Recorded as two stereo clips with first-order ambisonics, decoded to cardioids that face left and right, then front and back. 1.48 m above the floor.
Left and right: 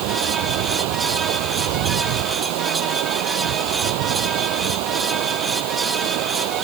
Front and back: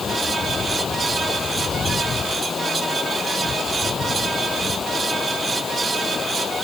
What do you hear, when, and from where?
0.0 s running water: 70° right